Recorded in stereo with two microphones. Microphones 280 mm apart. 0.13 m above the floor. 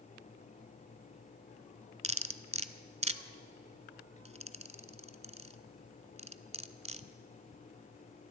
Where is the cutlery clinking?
25° right (ahead or behind), 0.7 m.